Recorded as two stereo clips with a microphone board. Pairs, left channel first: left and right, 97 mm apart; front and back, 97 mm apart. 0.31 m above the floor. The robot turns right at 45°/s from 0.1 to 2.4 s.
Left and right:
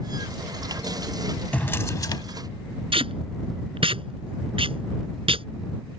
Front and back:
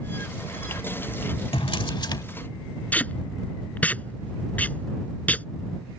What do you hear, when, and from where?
1.5 s a drawer: 15° left; by 2.2 s 45° left
2.9 s tape being pulled: 75° right